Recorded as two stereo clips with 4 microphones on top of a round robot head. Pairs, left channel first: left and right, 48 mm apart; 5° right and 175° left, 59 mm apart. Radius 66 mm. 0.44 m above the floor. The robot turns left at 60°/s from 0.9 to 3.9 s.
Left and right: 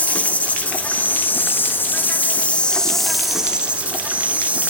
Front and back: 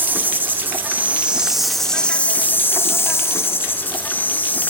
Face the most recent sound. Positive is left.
turn(degrees=-45)